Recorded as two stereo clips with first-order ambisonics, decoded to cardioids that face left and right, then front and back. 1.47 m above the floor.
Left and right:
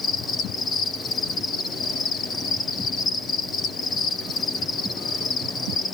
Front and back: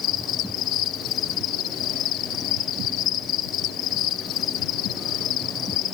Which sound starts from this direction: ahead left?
An insect, at 0.0 s.